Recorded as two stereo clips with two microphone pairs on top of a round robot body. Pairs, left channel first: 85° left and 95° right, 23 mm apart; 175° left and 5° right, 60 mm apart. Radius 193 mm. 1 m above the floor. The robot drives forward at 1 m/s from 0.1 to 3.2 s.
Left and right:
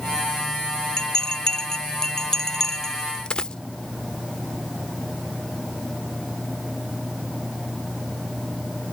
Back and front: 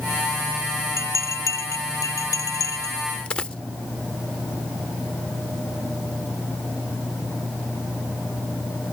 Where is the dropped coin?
125° left.